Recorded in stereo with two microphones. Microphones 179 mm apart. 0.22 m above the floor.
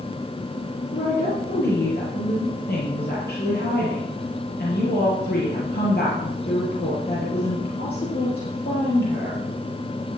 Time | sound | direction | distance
0.9 | a woman speaking | 60° left (ahead or behind) | 5.5 m